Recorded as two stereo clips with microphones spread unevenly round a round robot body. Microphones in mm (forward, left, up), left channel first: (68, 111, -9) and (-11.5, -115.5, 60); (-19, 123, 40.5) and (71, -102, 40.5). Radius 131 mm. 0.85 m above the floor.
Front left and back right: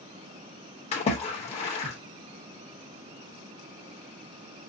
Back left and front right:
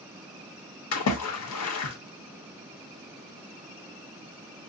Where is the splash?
130° left, 1.0 m.